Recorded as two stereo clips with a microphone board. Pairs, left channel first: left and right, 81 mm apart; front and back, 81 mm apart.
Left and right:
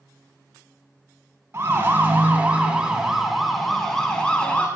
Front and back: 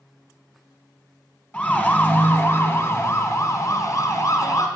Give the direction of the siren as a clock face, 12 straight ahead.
2 o'clock.